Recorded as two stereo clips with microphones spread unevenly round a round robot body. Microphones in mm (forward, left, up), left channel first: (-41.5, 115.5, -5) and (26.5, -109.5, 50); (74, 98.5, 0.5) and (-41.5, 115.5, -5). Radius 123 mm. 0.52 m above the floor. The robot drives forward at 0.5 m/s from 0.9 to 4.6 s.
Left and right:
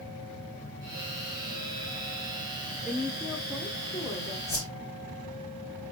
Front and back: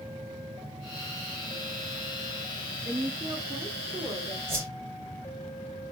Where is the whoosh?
175° right, 4 m.